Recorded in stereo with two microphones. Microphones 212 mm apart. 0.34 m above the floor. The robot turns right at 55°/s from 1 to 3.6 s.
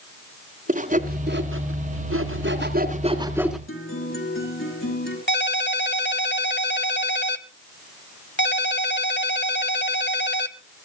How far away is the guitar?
About 5 m.